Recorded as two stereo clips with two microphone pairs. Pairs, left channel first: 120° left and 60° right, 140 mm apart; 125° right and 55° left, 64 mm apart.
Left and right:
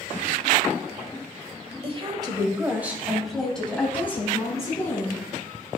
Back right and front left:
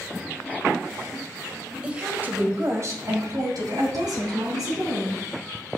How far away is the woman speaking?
About 1.6 m.